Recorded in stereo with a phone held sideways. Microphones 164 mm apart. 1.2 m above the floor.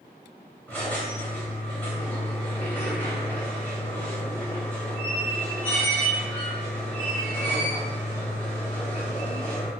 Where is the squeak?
10° left (ahead or behind), 1.2 m.